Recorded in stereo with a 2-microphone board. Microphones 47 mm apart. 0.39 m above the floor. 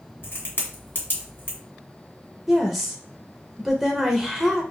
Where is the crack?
45° left (ahead or behind), 1.5 m.